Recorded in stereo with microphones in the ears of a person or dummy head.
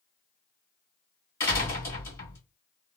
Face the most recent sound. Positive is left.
turn(degrees=15)  # may be behind; listen again after turning